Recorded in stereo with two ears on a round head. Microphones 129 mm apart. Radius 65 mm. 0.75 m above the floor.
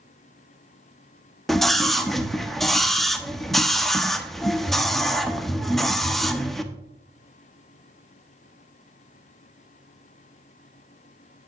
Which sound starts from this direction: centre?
A scream, at 1.5 s.